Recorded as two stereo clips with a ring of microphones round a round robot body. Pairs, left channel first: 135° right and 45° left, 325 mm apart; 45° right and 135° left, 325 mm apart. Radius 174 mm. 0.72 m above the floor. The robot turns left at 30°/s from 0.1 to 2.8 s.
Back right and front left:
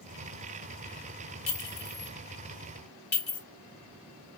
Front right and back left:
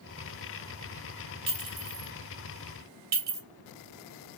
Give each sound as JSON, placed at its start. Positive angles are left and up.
{"t": 1.5, "sound": "a clink", "azimuth_deg": -150, "distance_m": 2.5}